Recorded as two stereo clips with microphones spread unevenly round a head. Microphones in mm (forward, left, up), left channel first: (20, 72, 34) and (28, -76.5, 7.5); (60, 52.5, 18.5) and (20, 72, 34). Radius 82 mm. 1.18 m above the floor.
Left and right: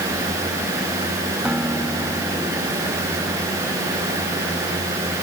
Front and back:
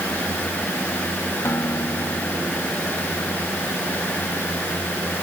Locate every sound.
1.4 s a guitar: straight ahead